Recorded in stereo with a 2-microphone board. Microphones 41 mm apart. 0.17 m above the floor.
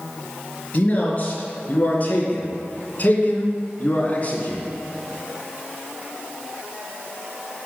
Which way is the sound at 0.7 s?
35° left (ahead or behind).